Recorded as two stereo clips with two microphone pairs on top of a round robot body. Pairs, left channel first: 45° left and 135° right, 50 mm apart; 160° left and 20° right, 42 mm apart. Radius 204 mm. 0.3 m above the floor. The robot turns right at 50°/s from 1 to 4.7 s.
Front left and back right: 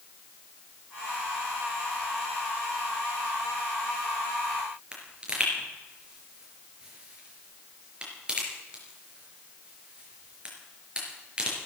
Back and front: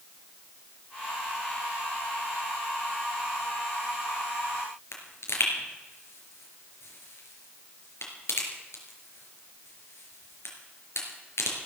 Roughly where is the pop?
Behind left.